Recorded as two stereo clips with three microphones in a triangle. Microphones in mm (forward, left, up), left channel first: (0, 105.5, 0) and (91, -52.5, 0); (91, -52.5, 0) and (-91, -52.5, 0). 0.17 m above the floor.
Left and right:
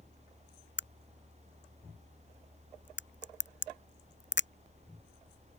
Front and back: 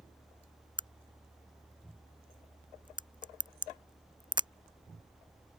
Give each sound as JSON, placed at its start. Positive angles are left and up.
{"t": 0.8, "sound": "a crack", "azimuth_deg": 115}